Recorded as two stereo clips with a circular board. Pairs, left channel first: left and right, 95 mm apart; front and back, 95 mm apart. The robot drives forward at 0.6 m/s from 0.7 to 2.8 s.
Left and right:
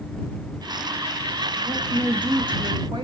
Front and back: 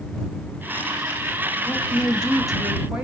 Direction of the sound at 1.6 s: 60° right.